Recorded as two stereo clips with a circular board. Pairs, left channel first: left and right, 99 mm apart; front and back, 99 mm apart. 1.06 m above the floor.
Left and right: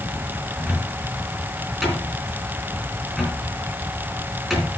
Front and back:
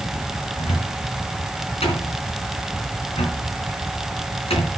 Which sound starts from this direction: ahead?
A cupboard door, at 0.6 s.